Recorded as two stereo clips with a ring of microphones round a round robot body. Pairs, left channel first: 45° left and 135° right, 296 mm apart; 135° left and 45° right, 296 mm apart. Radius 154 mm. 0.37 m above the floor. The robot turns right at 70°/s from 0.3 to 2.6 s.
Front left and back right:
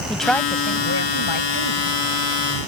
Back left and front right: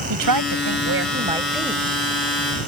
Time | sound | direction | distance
0.1 | a woman speaking | 45° right | ?